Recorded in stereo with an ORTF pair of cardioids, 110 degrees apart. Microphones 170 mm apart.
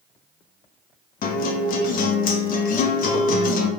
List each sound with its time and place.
1.2 s a guitar: 60° left, 0.6 m